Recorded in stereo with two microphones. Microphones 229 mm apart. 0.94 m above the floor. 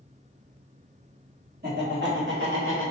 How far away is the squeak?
No squeak in this recording.